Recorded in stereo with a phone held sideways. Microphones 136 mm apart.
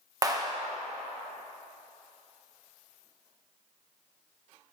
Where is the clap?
25° right (ahead or behind), 1.0 m.